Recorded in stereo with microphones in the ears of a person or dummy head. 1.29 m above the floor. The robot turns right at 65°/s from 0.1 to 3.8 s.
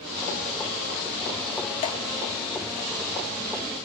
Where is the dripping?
35° left (ahead or behind), 1.1 m; by 2.0 s 25° left (ahead or behind), 1.1 m.